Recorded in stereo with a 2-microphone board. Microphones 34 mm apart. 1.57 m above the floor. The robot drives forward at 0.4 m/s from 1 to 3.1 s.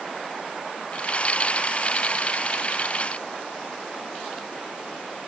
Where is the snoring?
I don't hear snoring.